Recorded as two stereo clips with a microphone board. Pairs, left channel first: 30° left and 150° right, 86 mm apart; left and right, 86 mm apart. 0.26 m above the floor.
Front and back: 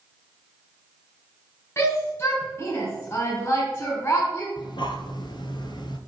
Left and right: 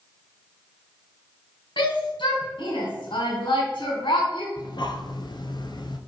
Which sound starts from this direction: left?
A shout, at 1.8 s.